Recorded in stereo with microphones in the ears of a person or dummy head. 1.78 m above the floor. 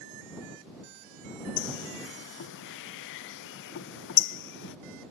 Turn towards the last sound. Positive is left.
turn(degrees=65)  # may be behind; listen again after turning